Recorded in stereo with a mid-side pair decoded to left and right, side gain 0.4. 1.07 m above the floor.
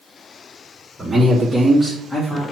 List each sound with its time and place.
1.0 s a man speaking: 25° right, 1.9 m; by 2.4 s 30° left, 2 m